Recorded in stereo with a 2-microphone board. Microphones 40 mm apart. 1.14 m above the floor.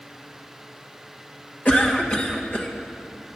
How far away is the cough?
About 1.6 m.